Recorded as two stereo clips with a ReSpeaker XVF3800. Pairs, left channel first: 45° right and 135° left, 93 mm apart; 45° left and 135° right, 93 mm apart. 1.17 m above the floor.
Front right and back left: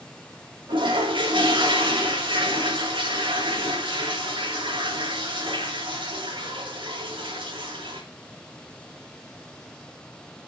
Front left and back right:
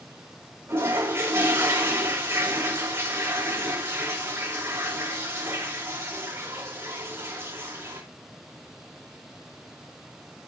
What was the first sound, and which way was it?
A toilet flushing, 165° left.